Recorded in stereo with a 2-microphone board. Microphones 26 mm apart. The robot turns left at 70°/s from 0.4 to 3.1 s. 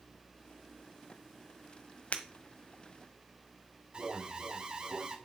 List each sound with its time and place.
2.1 s breaking glass: 60° left (ahead or behind), 1.4 m; by 2.2 s 70° left (ahead or behind), 1.4 m
3.9 s an alarm: 35° right (ahead or behind), 1.8 m